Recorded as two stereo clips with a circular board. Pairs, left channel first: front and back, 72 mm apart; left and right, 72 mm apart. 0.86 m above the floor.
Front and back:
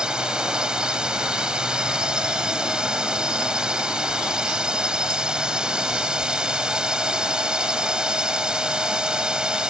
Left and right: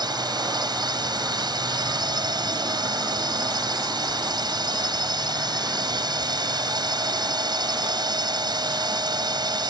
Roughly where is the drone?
Right.